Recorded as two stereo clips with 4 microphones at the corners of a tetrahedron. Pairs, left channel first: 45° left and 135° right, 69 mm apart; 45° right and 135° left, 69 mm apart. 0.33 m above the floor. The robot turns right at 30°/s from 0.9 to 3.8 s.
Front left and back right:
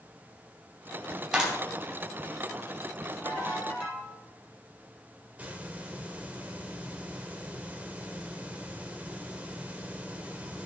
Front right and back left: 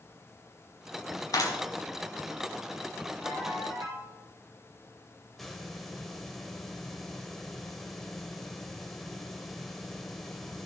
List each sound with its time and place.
1.3 s a clap: 60° right, 2.5 m; by 1.6 s 55° right, 2.5 m
3.2 s a ringtone: 110° left, 5 m; by 4.1 s 130° left, 5 m
5.4 s a hiss: 130° right, 1.1 m